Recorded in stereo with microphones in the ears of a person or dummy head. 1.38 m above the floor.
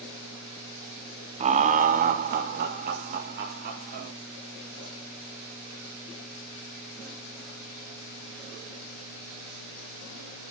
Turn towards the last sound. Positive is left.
turn(degrees=-50)  # may be behind; listen again after turning